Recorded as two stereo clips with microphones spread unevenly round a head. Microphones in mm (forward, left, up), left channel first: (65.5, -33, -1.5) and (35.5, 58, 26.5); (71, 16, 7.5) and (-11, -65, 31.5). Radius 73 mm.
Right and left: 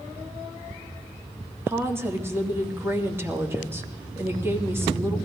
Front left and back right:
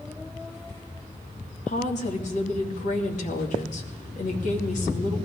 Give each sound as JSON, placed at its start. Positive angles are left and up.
{"t": 1.7, "sound": "a woman speaking", "azimuth_deg": 40, "distance_m": 2.5}